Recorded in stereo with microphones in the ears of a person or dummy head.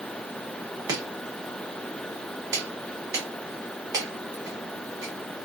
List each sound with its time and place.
0.9 s chopping: 15° right (ahead or behind), 1.0 m